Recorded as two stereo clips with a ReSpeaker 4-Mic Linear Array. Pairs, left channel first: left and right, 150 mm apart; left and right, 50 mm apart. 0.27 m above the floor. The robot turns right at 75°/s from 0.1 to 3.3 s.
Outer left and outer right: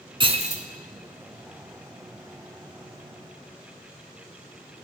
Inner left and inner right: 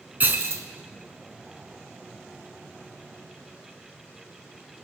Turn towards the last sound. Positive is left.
turn(degrees=90)